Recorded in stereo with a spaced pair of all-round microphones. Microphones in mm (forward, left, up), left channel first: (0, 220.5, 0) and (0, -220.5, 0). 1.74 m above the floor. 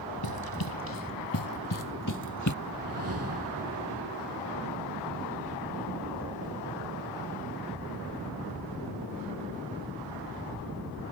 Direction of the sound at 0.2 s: 55° left (ahead or behind).